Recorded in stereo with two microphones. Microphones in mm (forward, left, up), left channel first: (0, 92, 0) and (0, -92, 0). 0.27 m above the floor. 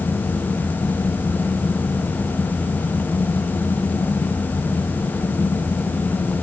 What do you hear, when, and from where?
Only background noise.